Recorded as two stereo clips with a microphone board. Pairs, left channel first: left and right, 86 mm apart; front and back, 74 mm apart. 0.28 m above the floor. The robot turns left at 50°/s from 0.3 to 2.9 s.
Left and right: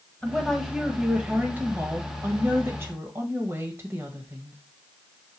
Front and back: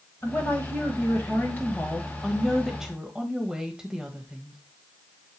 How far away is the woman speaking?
About 1.5 m.